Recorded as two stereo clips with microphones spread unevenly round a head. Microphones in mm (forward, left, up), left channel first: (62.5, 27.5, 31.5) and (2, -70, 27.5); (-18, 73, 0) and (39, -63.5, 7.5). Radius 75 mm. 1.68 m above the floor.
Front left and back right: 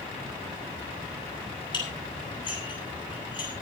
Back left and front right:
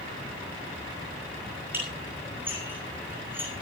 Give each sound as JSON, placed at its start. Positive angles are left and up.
{"t": 1.7, "sound": "dishes clattering", "azimuth_deg": 10, "distance_m": 9.5}